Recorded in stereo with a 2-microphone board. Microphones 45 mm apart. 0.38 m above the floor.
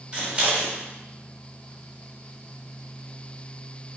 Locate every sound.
0.1 s scissors: 25° right (ahead or behind), 1.2 m